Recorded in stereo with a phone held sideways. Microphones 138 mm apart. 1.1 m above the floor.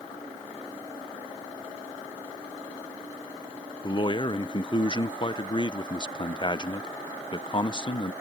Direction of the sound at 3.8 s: 35° left (ahead or behind).